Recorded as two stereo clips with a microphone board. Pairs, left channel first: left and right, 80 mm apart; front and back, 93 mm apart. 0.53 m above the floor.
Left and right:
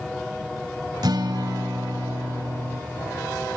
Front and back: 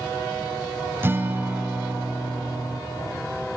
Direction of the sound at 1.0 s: 115° right.